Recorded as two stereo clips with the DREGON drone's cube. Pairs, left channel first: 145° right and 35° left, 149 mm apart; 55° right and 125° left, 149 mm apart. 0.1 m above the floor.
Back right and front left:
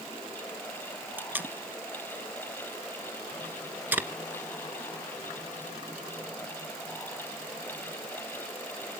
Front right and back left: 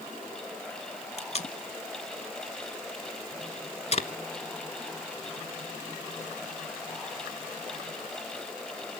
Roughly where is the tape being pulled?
Ahead right.